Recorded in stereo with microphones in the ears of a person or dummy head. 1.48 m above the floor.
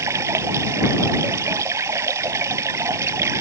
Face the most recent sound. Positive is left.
turn(degrees=-15)  # may be behind; listen again after turning